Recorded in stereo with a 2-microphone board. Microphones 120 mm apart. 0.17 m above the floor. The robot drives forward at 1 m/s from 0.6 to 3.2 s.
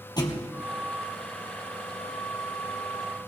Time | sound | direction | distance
0.2 | a thud | 35° left (ahead or behind) | 2.5 m